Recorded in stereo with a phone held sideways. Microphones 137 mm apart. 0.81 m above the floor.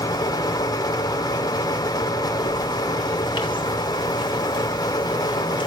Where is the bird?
35° left (ahead or behind), 3 m.